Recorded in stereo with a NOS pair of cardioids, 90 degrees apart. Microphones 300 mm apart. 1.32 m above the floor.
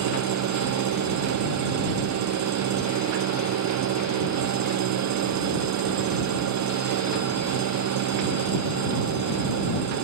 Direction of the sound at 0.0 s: 65° right.